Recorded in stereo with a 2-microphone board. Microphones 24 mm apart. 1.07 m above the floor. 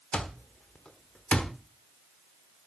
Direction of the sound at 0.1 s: 60° left (ahead or behind).